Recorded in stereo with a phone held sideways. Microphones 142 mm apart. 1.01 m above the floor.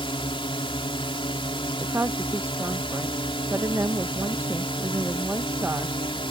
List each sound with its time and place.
0.0 s a drone: 40° left (ahead or behind)
1.8 s a woman speaking: 15° right (ahead or behind)